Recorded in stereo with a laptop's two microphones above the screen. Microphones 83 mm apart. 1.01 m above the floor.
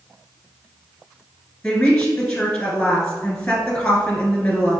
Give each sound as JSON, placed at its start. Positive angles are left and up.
{"t": 1.6, "sound": "a woman speaking", "side_deg": 15, "distance_m": 1.3}